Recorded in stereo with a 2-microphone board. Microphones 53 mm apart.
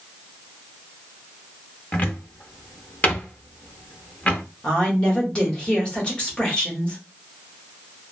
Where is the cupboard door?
30° left (ahead or behind), 0.5 m.